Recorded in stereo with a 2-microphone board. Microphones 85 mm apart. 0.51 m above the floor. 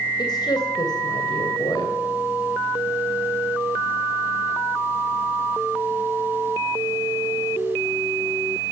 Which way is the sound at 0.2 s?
55° left (ahead or behind).